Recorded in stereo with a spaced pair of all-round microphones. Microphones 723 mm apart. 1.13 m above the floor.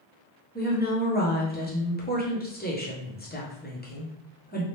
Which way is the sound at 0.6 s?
15° left (ahead or behind).